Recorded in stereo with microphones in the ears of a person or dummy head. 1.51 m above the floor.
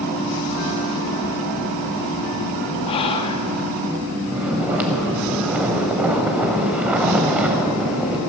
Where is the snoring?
10° right (ahead or behind), 0.8 m.